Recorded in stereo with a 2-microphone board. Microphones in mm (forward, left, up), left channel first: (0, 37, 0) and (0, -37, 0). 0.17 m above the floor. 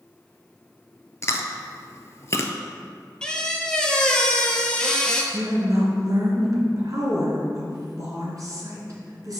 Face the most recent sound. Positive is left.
turn(degrees=-50)  # may be behind; listen again after turning